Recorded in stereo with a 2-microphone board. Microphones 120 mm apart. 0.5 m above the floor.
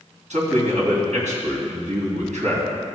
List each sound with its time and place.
0.3 s a man speaking: 75° right (ahead or behind), 3 m